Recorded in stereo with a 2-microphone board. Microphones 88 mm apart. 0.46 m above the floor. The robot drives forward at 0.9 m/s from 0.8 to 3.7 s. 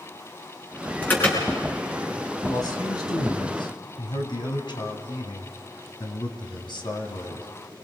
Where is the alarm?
20° left (ahead or behind), 5.5 m.